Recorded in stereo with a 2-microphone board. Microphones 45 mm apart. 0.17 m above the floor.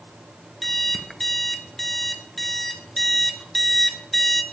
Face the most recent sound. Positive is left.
turn(degrees=5)  # may be behind; listen again after turning